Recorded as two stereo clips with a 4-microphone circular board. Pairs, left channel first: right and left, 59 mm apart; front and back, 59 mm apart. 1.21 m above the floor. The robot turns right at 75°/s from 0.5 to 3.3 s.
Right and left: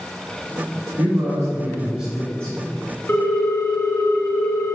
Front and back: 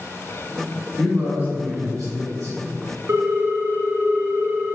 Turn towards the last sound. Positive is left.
turn(degrees=-130)